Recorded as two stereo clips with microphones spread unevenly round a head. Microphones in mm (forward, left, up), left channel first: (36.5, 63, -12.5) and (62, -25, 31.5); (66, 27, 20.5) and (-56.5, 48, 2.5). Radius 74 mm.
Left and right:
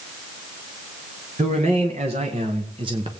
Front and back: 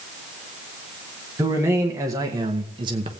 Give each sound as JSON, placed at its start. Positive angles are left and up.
{"t": 1.4, "sound": "a man speaking", "azimuth_deg": -115, "distance_m": 1.9}